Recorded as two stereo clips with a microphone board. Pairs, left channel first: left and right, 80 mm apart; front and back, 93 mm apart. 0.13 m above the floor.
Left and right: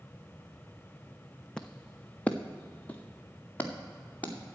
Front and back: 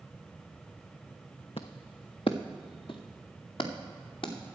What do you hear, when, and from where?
1.6 s footsteps: 10° left, 0.6 m; by 4.3 s 25° left, 2.5 m